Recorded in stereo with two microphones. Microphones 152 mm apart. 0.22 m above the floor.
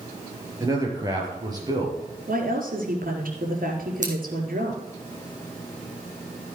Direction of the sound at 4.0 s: 55° right (ahead or behind).